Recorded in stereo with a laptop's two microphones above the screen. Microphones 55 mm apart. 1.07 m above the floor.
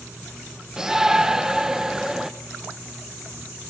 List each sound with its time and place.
0.8 s a shout: 10° right (ahead or behind), 1.1 m